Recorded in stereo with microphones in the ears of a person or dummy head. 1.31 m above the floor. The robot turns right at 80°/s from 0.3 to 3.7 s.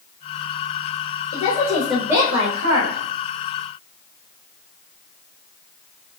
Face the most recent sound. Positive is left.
turn(degrees=-45)